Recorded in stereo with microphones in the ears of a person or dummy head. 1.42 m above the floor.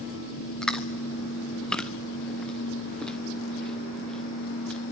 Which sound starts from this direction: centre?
Chewing, at 0.6 s.